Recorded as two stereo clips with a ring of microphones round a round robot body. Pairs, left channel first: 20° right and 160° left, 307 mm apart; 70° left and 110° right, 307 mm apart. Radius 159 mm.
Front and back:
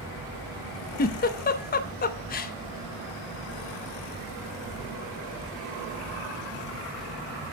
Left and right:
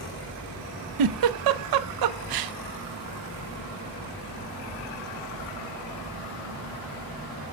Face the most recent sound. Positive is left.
turn(degrees=-85)